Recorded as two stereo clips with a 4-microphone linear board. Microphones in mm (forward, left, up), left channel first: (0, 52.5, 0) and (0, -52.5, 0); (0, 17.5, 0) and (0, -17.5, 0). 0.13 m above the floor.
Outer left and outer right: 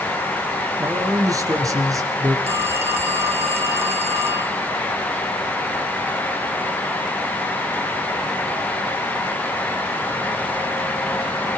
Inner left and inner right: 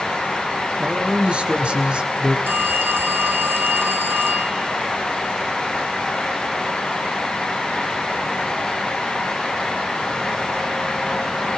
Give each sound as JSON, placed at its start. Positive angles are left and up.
{"t": 0.8, "sound": "a man speaking", "side_deg": -30, "distance_m": 3.0}
{"t": 2.5, "sound": "a phone ringing", "side_deg": -80, "distance_m": 4.0}